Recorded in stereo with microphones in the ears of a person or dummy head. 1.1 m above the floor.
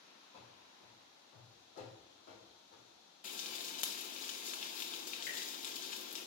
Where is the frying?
35° left (ahead or behind), 0.5 m.